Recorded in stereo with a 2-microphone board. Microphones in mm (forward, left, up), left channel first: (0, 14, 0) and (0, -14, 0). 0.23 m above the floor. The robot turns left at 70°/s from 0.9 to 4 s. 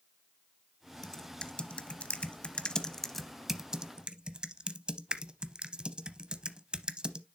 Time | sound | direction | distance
1.0 | typing on a keyboard | 15° left (ahead or behind) | 0.6 m